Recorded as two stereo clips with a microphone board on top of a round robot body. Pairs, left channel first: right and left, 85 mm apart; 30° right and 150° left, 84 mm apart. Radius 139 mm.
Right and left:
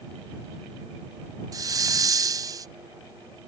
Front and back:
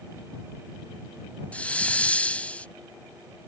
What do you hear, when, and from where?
1.5 s a hiss: 45° left